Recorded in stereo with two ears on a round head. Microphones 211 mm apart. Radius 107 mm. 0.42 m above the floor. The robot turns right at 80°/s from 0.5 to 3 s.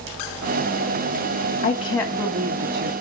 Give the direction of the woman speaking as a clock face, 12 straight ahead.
7 o'clock.